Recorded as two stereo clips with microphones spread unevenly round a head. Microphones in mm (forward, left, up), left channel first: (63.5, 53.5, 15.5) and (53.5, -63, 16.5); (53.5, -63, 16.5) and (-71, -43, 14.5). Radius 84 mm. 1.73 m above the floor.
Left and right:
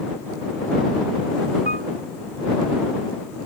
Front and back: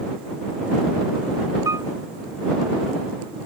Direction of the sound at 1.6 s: 125° right.